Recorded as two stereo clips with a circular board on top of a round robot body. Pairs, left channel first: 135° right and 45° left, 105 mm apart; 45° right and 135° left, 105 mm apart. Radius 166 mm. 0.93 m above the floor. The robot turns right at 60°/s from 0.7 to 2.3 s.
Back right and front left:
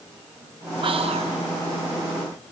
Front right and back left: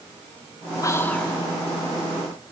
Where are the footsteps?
I don't hear footsteps.